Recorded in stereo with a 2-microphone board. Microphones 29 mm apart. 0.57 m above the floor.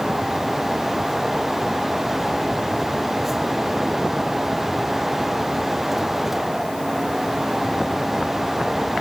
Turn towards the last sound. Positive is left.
No sound to turn to.